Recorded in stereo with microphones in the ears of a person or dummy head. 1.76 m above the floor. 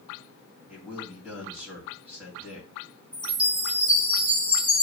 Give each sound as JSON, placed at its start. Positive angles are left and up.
{"t": 0.7, "sound": "a man speaking", "side_deg": -5, "distance_m": 2.0}
{"t": 3.1, "sound": "a chime", "side_deg": 0, "distance_m": 2.0}